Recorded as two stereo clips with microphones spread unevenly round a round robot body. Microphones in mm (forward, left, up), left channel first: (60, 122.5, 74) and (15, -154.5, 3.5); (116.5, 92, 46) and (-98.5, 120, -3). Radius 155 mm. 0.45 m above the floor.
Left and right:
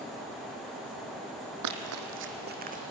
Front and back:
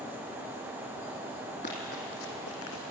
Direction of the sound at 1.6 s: 70° right.